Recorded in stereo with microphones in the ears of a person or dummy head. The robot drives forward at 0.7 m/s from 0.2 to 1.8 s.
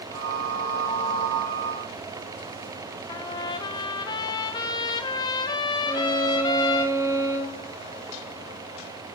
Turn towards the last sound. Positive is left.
turn(degrees=-15)  # may be behind; listen again after turning